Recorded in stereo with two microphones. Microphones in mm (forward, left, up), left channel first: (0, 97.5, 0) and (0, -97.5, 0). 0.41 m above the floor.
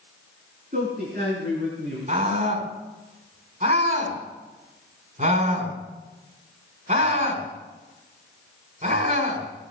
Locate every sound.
0.7 s a man speaking: 45° right (ahead or behind), 3 m; by 2.0 s 65° right (ahead or behind), 4.5 m
2.1 s a scream: 45° right (ahead or behind), 4.5 m